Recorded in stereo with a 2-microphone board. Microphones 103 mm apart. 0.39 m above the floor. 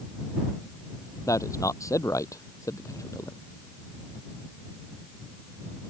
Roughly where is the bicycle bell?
No bicycle bell in this recording.